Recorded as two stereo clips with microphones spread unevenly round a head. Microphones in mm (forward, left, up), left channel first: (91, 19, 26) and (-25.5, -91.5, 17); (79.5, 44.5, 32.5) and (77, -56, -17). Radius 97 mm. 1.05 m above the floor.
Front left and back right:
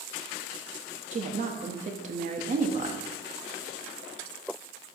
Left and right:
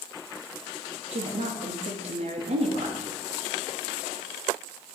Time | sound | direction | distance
1.1 | a woman speaking | 90° right | 1.2 m